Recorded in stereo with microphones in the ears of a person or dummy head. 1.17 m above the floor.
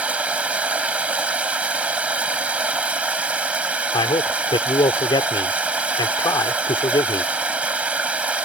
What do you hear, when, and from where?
0.0 s running water: 10° right (ahead or behind)
3.9 s a man speaking: 20° left (ahead or behind)